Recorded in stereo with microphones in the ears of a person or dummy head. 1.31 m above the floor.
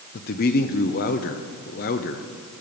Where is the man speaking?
45° left (ahead or behind), 0.8 m.